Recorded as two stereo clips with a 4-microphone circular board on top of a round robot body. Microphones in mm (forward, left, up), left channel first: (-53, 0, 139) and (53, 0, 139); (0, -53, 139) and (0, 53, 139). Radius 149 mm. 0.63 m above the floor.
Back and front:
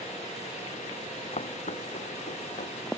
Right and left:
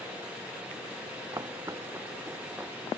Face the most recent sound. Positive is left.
turn(degrees=175)